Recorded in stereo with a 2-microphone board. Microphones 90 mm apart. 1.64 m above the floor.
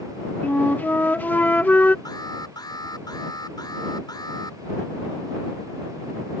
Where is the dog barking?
I don't hear a dog barking.